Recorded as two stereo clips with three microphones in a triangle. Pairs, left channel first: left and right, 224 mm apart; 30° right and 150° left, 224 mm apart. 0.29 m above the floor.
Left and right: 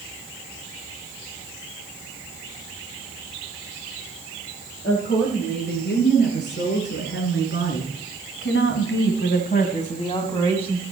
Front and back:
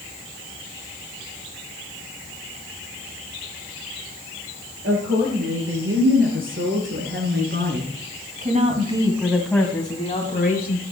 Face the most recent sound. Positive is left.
turn(degrees=5)